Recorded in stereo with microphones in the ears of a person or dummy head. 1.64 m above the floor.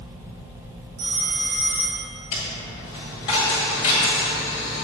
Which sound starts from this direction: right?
A phone ringing, at 1.0 s.